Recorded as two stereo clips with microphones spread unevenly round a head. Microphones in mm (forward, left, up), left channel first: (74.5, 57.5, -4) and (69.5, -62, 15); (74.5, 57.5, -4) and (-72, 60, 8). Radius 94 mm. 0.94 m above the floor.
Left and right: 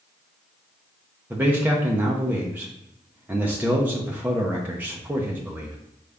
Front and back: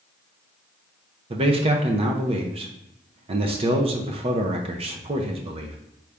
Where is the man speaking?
175° right, 0.6 m.